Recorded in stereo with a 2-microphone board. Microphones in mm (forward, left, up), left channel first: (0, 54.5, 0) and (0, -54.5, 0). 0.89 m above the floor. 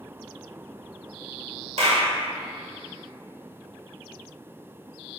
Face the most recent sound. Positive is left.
turn(degrees=-75)  # may be behind; listen again after turning